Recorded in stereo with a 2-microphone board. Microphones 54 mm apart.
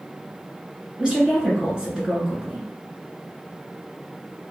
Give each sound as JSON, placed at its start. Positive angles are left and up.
{"t": 1.0, "sound": "a woman speaking", "side_deg": -15, "distance_m": 1.7}